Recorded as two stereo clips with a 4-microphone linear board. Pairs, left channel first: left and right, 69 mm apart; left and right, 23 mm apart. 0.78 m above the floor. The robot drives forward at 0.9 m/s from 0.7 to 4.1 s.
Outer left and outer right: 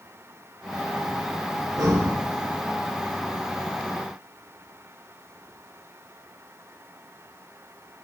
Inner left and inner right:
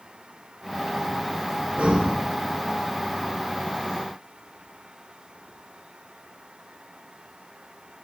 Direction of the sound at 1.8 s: 60° right (ahead or behind).